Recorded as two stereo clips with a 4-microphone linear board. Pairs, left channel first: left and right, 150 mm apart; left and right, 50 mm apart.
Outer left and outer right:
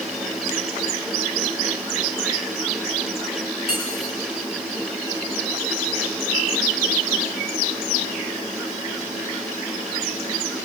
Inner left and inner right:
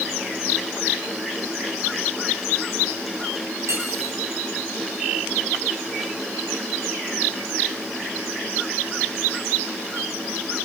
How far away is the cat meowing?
No cat meowing in this recording.